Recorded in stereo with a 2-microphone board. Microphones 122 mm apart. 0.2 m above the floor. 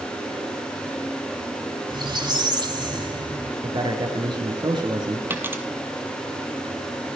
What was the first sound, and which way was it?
A squeak, 40° right (ahead or behind).